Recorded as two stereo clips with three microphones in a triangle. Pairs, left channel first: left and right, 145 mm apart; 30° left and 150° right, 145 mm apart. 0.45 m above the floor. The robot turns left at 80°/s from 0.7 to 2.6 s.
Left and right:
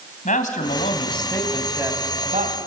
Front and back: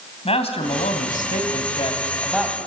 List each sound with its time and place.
0.2 s a man speaking: 70° left, 2.5 m; by 2.6 s 75° right, 2.5 m